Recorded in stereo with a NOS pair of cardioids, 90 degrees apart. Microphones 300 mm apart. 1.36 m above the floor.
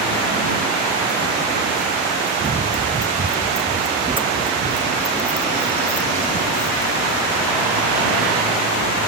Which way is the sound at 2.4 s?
30° right.